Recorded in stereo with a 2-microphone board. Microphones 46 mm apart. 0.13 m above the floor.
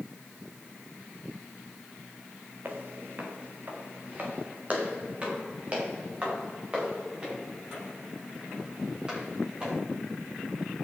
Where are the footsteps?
45° right (ahead or behind), 3 m; by 9.8 s 20° right (ahead or behind), 11 m.